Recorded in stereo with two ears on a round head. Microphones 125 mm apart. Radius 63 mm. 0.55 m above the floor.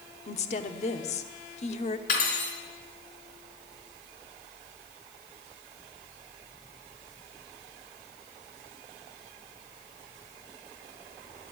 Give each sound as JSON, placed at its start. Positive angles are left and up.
{"t": 0.3, "sound": "a woman speaking", "side_deg": 50, "distance_m": 1.0}
{"t": 2.1, "sound": "cutlery clinking", "side_deg": 65, "distance_m": 4.0}